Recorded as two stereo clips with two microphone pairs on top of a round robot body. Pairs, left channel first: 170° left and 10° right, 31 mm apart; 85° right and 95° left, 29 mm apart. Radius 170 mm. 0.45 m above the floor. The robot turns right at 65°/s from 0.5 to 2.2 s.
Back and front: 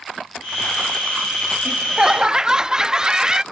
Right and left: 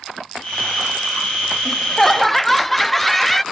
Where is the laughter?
45° right, 0.7 m; by 3.4 s 10° right, 0.7 m.